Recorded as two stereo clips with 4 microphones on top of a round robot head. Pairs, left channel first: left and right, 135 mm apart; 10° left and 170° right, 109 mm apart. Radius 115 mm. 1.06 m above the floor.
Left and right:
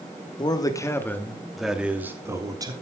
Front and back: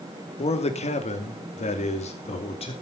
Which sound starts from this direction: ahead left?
A man speaking, at 0.4 s.